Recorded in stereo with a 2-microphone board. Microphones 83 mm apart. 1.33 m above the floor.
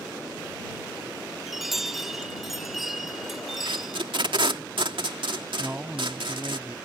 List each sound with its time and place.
1.5 s a chime: 5° right (ahead or behind)
3.6 s tape being pulled: 85° right
5.6 s a man speaking: 20° right (ahead or behind)